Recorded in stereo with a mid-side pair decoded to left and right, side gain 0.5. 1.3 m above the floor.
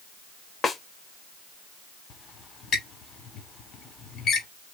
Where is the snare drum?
35° left, 1.1 m.